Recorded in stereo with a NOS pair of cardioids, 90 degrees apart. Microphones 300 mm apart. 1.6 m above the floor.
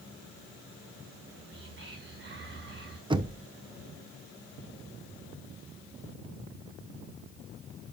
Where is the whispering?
40° right, 1.6 m.